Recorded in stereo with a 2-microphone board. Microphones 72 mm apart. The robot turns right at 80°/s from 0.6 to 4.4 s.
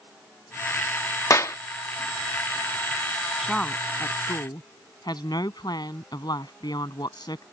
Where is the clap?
45° left (ahead or behind); by 1.6 s 40° left (ahead or behind).